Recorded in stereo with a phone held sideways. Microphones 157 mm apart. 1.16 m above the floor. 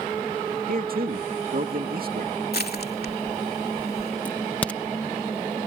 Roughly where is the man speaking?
Right.